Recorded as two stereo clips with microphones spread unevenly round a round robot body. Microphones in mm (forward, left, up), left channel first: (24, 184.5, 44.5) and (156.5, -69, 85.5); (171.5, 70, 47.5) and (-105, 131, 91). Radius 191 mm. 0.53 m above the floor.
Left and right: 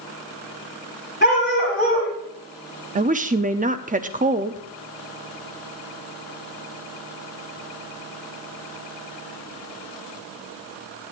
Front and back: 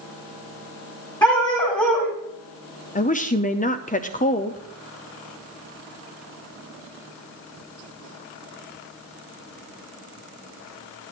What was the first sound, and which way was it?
A dog barking, 65° left.